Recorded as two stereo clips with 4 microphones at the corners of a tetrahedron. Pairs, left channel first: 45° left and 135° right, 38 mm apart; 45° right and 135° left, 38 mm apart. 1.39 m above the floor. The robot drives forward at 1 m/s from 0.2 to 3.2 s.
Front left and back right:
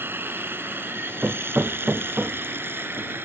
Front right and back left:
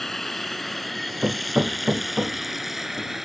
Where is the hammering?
175° right; by 3.1 s straight behind.